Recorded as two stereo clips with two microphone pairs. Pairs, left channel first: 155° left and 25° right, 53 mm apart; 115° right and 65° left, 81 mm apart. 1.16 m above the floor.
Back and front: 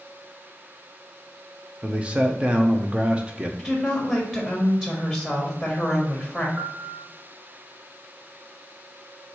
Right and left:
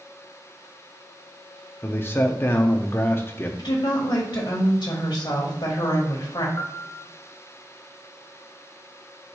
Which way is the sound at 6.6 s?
65° right.